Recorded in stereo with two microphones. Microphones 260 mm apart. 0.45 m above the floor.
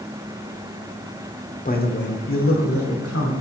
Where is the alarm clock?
No alarm clock in this recording.